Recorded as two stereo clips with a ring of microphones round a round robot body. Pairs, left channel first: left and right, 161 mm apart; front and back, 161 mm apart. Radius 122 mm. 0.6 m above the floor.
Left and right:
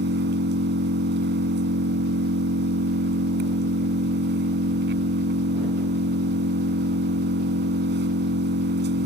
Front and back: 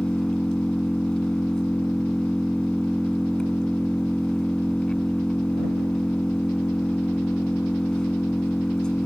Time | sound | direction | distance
0.0 | an engine running | 85° right | ?